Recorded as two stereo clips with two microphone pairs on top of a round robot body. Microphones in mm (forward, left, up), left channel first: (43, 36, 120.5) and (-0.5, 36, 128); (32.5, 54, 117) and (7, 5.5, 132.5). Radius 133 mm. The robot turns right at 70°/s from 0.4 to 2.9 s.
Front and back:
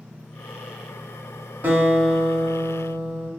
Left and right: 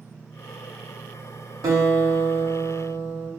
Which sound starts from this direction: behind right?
A guitar, at 1.6 s.